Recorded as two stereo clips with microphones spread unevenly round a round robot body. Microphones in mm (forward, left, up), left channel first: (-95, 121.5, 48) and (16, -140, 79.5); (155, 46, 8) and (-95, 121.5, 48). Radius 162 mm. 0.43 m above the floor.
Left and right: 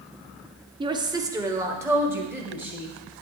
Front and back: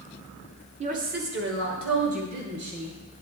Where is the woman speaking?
135° right, 1.0 m; by 2.9 s 155° right, 3 m.